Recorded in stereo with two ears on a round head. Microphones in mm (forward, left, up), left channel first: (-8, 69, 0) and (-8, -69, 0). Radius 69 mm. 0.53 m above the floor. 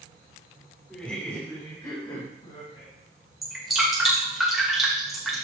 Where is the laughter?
5° left (ahead or behind), 1.6 m; by 2.9 s 40° left (ahead or behind), 3 m.